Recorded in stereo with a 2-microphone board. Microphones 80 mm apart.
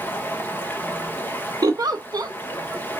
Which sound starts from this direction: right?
A giggle, at 1.6 s.